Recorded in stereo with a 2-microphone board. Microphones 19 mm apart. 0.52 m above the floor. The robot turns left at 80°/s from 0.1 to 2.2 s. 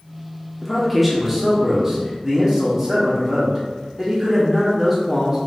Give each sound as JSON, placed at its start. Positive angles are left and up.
{"t": 0.6, "sound": "a man speaking", "side_deg": 5, "distance_m": 0.8}